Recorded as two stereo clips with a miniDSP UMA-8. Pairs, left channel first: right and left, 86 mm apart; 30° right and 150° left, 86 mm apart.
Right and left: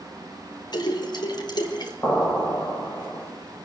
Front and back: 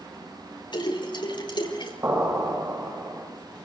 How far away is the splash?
About 4.5 m.